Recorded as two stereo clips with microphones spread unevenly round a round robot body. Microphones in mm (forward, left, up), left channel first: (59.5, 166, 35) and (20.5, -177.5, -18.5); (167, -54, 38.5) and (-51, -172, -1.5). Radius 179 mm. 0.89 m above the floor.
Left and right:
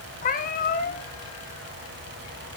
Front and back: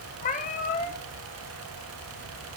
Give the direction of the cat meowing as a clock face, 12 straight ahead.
10 o'clock.